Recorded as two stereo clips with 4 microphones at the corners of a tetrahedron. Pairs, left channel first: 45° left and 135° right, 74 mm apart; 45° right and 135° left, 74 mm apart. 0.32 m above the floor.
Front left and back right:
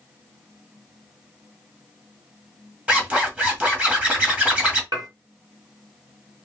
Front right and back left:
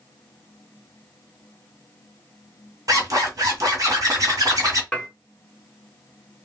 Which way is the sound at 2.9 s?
160° left.